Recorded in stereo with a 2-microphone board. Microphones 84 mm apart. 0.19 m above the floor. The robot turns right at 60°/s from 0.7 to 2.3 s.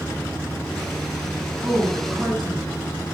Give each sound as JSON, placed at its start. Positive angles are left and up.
{"t": 1.6, "sound": "a woman speaking", "azimuth_deg": -30, "distance_m": 1.5}